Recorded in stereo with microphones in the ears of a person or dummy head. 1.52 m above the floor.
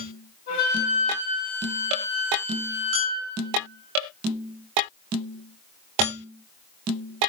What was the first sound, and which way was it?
A flute, 55° left (ahead or behind).